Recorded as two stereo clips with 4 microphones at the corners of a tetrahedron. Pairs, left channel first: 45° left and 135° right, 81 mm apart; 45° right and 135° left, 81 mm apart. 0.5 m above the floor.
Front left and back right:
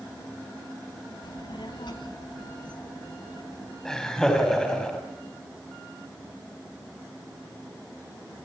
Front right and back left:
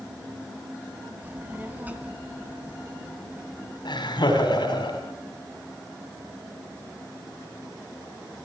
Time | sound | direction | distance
1.2 | a child speaking | 70° left | 2 m
3.9 | laughter | 40° right | 4 m